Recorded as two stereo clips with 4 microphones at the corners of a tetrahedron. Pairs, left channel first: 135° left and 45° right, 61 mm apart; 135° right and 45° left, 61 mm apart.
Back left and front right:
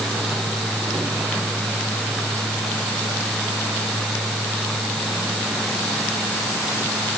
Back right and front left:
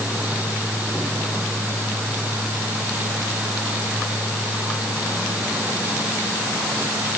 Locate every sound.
Only background noise.